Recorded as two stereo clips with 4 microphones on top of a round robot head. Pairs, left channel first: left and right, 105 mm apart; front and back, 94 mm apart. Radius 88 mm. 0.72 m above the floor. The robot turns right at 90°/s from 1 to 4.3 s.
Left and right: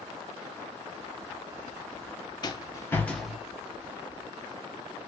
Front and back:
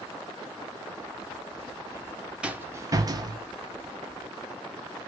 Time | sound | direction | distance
2.4 | a rattle | 105° left | 0.7 m